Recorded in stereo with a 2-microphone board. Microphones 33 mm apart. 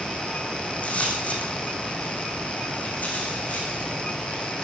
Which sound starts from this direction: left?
Footsteps, at 0.6 s.